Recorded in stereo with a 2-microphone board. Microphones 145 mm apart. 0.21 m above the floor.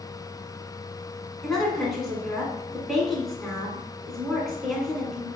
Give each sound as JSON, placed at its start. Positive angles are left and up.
{"t": 1.4, "sound": "a woman speaking", "side_deg": 0, "distance_m": 1.8}